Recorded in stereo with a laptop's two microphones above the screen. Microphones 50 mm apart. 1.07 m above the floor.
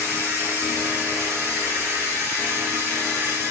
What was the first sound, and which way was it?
A machine running, 65° right (ahead or behind).